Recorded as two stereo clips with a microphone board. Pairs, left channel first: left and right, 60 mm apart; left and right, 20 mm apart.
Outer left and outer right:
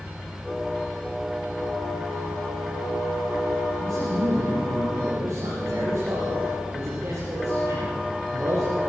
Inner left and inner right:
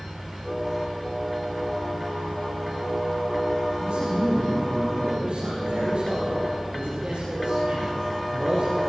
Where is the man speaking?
45° right (ahead or behind), 7 m.